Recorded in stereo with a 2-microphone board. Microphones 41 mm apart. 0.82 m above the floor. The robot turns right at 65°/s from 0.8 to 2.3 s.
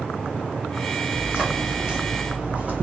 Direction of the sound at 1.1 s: 35° right (ahead or behind).